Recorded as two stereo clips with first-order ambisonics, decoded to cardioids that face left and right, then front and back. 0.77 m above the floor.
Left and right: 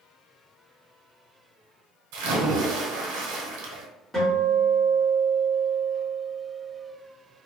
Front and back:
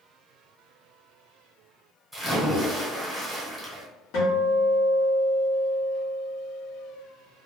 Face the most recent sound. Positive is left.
turn(degrees=0)